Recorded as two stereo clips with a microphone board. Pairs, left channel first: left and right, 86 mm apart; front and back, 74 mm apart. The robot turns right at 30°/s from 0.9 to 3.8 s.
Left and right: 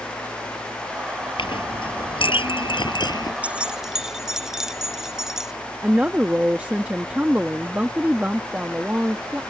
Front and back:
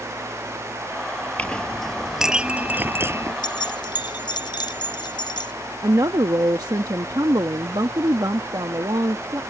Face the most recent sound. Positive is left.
turn(degrees=-160)